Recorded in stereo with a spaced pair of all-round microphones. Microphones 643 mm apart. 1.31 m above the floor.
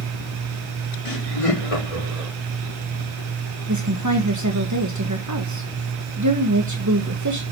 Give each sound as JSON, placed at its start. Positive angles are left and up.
{"t": 1.1, "sound": "laughter", "side_deg": 55, "distance_m": 3.5}
{"t": 3.7, "sound": "a woman speaking", "side_deg": -30, "distance_m": 1.5}